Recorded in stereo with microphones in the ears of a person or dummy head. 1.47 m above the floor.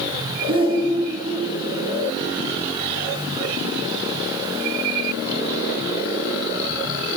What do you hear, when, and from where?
0.5 s a shout: 25° right (ahead or behind), 1.5 m